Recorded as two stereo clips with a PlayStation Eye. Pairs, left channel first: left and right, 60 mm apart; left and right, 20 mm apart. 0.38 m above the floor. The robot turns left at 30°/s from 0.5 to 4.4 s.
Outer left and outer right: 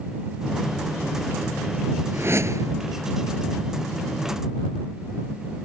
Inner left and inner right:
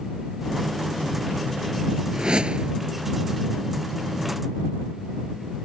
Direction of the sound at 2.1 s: 40° right (ahead or behind).